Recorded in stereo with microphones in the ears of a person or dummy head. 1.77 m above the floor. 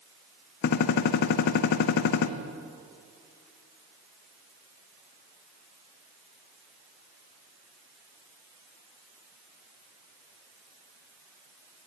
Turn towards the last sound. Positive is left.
turn(degrees=55)  # may be behind; listen again after turning